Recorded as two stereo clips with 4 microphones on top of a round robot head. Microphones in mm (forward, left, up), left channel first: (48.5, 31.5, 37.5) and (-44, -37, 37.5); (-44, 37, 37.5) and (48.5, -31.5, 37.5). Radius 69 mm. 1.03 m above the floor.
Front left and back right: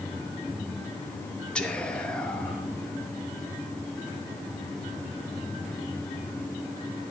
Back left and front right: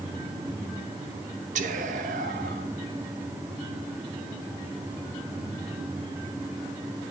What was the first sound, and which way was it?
Whispering, 45° right.